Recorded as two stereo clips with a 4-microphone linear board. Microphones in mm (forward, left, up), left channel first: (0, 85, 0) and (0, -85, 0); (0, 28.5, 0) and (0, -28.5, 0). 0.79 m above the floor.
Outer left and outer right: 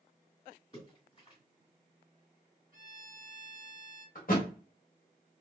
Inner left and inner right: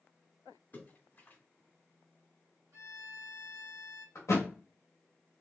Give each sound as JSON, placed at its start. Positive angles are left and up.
{"t": 0.7, "sound": "a splash", "side_deg": 40, "distance_m": 1.7}
{"t": 2.7, "sound": "a violin", "side_deg": -65, "distance_m": 1.5}
{"t": 4.2, "sound": "a thud", "side_deg": 60, "distance_m": 1.1}